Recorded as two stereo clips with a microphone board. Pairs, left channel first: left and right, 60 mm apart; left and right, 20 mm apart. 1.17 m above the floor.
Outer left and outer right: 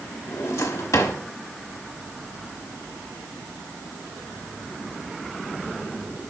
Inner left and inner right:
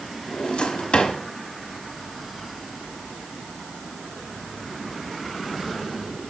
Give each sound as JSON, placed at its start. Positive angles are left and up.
{"t": 0.3, "sound": "a drawer", "side_deg": 65, "distance_m": 1.1}